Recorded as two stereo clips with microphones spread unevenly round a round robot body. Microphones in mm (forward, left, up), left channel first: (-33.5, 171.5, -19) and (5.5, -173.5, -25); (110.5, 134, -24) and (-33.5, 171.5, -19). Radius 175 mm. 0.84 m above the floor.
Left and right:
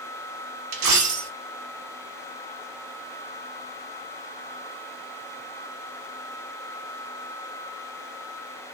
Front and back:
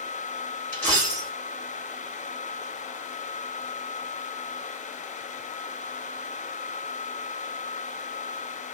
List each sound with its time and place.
0.7 s a dropped coin: 90° right, 1.0 m